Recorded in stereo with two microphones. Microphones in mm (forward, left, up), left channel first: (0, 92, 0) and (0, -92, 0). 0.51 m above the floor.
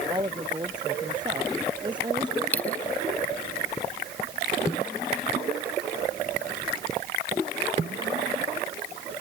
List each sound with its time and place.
0.1 s a woman speaking: 25° right (ahead or behind)
2.5 s a dropped coin: 10° left (ahead or behind)